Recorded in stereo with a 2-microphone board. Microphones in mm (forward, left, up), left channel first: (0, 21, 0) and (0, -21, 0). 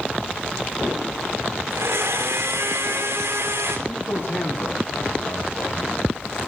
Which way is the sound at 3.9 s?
50° left (ahead or behind).